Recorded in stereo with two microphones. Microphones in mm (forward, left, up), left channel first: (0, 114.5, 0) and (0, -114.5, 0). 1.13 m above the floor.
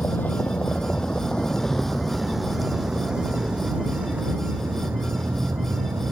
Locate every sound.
0.0 s a vehicle: 10° left (ahead or behind); by 6.1 s 10° right (ahead or behind)